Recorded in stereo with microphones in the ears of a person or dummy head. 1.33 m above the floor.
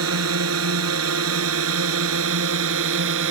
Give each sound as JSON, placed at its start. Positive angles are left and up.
{"t": 0.0, "sound": "a drone", "side_deg": -90}